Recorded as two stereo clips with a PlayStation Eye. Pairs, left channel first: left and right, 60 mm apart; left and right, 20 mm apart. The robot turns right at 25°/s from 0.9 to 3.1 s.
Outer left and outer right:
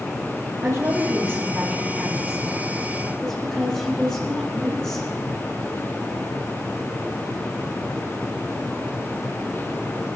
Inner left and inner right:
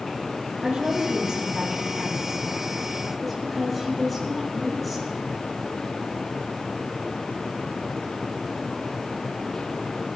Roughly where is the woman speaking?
Ahead right.